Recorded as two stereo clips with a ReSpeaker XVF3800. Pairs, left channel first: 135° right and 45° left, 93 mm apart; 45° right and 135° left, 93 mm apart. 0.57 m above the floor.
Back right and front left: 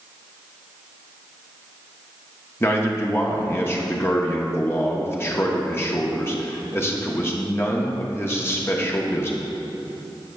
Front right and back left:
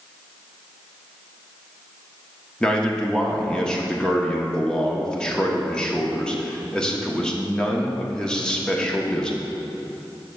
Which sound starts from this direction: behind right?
A man speaking, at 2.6 s.